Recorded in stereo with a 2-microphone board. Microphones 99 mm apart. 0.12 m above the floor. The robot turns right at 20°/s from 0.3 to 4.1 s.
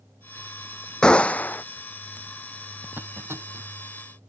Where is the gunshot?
10° left (ahead or behind); by 1.6 s 20° left (ahead or behind).